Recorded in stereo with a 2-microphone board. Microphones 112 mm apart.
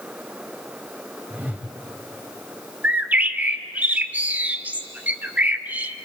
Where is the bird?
15° right (ahead or behind), 0.7 m.